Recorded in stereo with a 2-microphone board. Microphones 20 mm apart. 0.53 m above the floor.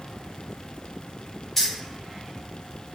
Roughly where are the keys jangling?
Left.